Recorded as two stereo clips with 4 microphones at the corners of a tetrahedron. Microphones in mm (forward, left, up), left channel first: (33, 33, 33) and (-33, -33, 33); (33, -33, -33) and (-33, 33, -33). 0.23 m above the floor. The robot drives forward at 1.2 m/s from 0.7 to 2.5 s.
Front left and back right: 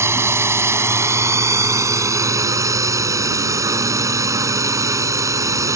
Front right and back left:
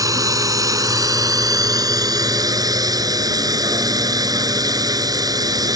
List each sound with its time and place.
0.0 s a drone: 175° left